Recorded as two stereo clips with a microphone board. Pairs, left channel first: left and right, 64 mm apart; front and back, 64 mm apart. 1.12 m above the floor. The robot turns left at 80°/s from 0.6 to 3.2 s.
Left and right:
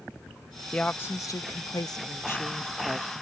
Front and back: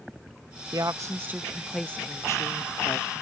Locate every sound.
0.7 s a woman speaking: 165° left; by 3.2 s 35° right